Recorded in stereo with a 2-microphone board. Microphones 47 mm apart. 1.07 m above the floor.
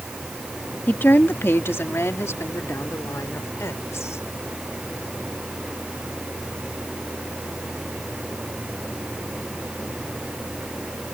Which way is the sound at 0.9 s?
45° left (ahead or behind).